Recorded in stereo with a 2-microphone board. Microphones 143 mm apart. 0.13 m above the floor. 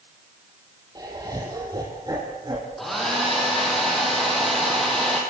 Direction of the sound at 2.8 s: Centre (ahead or behind).